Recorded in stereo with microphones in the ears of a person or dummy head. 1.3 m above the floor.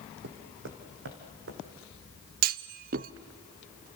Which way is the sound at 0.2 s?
60° right (ahead or behind).